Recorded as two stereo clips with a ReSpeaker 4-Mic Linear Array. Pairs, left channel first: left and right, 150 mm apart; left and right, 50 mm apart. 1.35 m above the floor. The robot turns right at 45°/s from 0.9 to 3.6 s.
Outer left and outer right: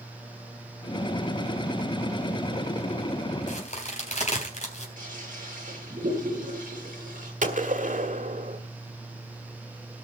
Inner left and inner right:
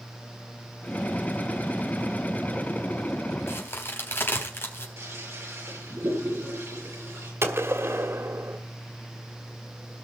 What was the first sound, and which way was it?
A crack, 55° left (ahead or behind).